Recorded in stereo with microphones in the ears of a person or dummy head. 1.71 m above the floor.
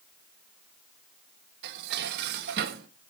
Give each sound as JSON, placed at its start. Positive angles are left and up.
{"t": 1.6, "sound": "dishes clattering", "side_deg": -55, "distance_m": 1.5}